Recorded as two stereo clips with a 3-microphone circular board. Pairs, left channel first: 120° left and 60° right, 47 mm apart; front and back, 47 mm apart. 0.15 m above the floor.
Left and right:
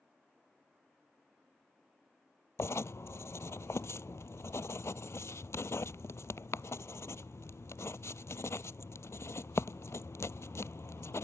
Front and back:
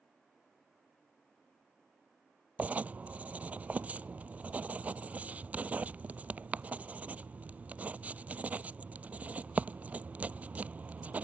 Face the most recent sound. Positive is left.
turn(degrees=125)